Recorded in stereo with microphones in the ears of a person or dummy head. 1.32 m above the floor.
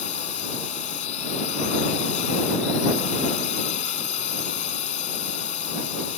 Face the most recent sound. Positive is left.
turn(degrees=45)  # may be behind; listen again after turning